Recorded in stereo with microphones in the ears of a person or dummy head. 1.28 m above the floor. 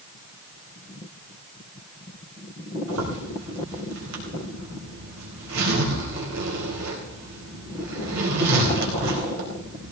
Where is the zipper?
75° right (ahead or behind), 4 m.